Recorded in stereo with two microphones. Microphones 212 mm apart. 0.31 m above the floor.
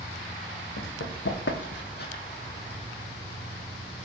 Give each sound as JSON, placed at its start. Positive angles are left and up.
{"t": 0.8, "sound": "running footsteps", "side_deg": 75, "distance_m": 1.1}